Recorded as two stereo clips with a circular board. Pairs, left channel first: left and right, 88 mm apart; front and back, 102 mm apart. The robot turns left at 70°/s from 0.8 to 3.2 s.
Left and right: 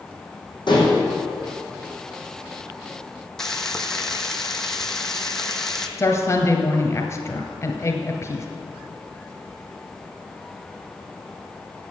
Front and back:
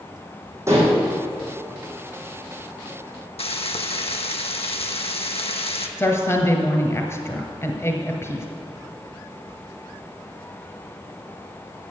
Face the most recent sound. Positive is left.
turn(degrees=50)